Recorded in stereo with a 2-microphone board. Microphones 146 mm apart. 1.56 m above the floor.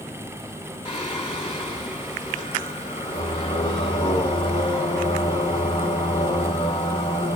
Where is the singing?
35° left (ahead or behind), 1.7 m.